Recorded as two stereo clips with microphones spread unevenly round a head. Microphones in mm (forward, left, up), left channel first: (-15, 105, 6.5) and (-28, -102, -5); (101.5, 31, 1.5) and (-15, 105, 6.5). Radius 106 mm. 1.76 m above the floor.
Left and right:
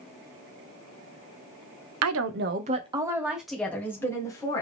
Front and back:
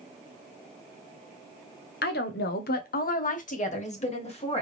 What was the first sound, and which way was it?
A woman speaking, 70° right.